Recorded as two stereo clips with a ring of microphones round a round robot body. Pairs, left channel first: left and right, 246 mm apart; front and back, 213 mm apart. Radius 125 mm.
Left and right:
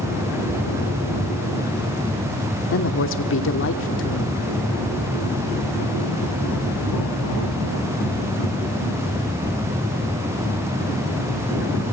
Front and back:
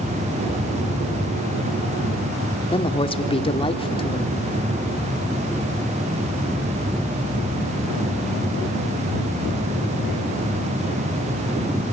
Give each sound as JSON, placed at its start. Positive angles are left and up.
{"t": 2.7, "sound": "a woman speaking", "azimuth_deg": 60, "distance_m": 1.5}